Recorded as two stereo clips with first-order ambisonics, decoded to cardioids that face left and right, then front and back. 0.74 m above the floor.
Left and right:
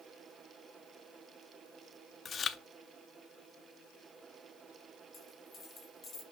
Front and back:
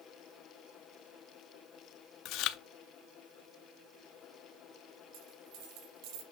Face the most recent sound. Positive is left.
turn(degrees=160)